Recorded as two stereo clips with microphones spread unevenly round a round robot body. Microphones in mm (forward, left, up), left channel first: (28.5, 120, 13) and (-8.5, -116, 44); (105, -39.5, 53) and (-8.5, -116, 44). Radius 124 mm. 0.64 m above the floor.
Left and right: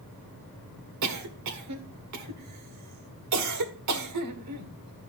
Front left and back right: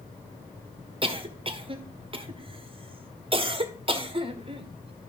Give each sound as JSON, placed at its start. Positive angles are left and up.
{"t": 1.0, "sound": "a cough", "azimuth_deg": -105, "distance_m": 1.8}